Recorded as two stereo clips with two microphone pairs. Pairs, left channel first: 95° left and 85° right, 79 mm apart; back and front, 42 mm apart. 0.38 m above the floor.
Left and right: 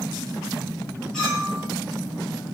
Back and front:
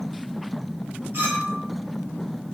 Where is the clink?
15° left, 1.4 m.